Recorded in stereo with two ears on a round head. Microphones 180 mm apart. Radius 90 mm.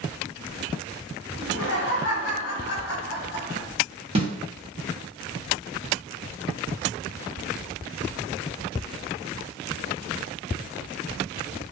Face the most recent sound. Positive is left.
turn(degrees=-30)  # may be behind; listen again after turning